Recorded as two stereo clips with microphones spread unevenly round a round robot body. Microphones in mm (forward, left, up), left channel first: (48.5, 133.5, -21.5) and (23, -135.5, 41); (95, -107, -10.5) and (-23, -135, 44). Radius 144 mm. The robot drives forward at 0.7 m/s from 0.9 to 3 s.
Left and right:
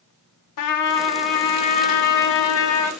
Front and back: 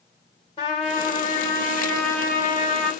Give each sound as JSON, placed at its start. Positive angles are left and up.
{"t": 0.6, "sound": "a trumpet", "azimuth_deg": 75, "distance_m": 1.7}